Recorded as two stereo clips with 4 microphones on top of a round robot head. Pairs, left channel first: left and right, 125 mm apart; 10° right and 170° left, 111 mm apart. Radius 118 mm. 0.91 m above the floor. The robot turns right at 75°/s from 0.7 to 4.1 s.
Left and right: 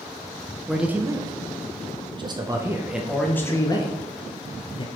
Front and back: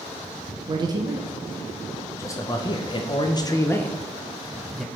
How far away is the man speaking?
About 0.6 m.